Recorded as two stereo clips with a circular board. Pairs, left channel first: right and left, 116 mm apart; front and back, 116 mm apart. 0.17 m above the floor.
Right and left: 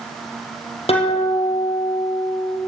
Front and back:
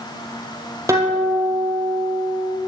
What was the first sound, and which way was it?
A guitar, 120° right.